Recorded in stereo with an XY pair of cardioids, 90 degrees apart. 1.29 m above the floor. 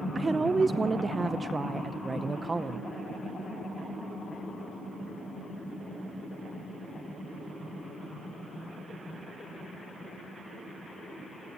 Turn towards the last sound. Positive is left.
turn(degrees=-30)